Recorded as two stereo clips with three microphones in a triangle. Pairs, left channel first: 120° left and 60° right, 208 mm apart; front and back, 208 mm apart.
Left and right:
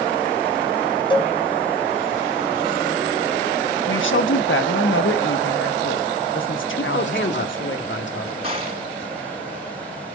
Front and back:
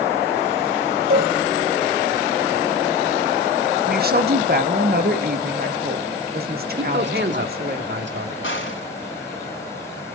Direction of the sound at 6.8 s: 150° left.